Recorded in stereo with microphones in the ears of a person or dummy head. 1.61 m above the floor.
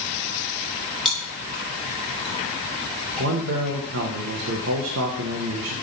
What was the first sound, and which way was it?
Chewing, centre (ahead or behind).